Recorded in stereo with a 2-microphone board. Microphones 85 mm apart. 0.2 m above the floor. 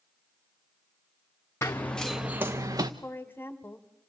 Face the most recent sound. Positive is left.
turn(degrees=25)  # may be behind; listen again after turning